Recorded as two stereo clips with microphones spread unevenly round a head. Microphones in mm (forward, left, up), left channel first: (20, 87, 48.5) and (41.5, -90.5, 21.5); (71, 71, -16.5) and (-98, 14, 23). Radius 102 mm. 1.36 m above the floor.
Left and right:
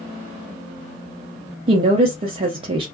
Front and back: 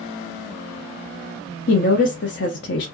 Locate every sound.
1.7 s a woman speaking: 20° right, 0.5 m